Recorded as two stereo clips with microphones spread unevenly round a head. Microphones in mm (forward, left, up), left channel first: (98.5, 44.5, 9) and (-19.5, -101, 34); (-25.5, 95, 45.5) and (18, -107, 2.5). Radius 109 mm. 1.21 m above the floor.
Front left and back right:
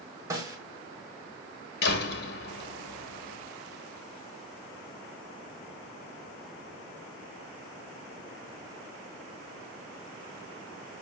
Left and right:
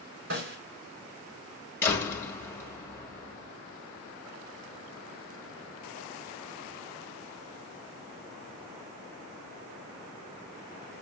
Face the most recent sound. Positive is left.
turn(degrees=25)